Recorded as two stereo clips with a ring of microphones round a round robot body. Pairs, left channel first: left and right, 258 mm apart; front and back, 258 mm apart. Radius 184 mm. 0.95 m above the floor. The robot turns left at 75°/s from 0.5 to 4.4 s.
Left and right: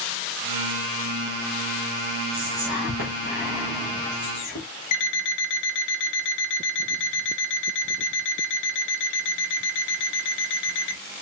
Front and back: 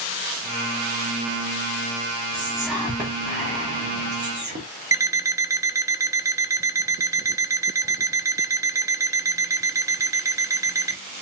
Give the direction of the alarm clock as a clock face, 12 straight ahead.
9 o'clock.